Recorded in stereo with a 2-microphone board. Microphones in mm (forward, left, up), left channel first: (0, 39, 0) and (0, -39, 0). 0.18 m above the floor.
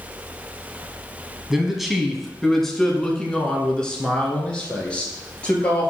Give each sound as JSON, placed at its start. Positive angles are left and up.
{"t": 1.5, "sound": "a man speaking", "side_deg": -5, "distance_m": 1.1}